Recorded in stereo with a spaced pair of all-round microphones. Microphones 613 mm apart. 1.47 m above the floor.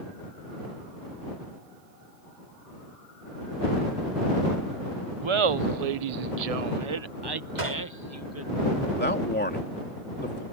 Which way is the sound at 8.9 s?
15° left (ahead or behind).